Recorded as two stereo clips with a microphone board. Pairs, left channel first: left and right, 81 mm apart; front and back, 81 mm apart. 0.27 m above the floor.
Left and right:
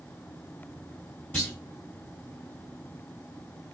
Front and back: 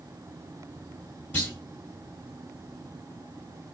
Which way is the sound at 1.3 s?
40° left.